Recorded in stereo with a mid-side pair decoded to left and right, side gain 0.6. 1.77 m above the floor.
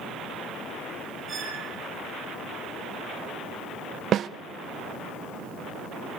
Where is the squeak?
30° right, 7.5 m.